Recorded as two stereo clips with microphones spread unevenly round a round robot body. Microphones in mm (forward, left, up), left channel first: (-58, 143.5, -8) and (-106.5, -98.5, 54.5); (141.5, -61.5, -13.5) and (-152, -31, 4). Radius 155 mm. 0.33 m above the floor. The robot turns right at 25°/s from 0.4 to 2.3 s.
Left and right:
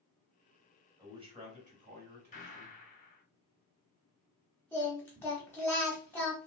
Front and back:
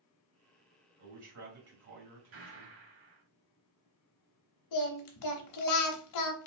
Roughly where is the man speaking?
Behind.